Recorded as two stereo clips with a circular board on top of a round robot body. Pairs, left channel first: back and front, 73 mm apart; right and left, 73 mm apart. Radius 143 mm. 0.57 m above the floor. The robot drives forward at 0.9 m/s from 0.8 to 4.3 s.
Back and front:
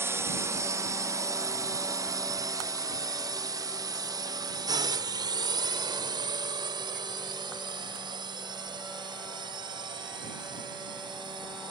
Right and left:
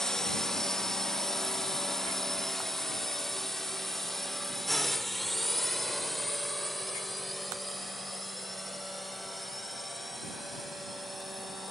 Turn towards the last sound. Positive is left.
turn(degrees=0)